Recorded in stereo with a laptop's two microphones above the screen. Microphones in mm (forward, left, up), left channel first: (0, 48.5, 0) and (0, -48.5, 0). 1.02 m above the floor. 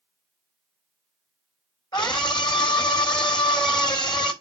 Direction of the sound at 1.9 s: 50° left (ahead or behind).